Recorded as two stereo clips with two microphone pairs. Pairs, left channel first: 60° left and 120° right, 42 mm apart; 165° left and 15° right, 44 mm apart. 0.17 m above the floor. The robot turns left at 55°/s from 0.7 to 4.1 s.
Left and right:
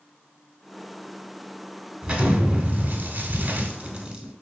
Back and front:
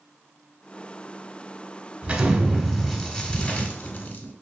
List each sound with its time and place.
2.0 s an explosion: 65° right, 0.7 m; by 4.3 s straight behind, 0.7 m